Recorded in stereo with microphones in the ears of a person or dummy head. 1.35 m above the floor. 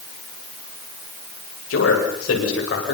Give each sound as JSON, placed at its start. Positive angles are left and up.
{"t": 1.7, "sound": "a man speaking", "side_deg": 80, "distance_m": 8.0}